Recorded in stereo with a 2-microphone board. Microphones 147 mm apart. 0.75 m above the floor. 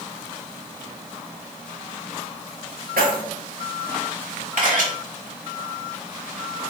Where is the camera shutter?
65° right (ahead or behind), 1.2 m.